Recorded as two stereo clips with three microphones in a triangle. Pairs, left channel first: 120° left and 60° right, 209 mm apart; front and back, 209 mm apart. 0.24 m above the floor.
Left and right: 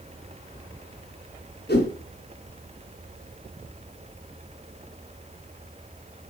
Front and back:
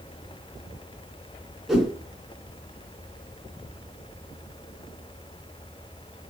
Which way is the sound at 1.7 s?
90° left.